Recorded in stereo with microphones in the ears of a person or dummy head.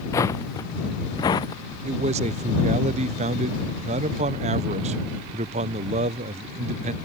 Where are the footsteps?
15° left (ahead or behind); by 1.6 s 25° left (ahead or behind).